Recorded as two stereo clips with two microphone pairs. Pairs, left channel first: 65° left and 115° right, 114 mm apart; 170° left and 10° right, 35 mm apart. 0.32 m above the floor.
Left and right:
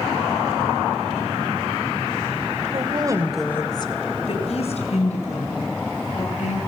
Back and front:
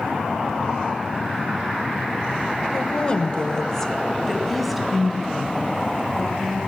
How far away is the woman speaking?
About 1.3 m.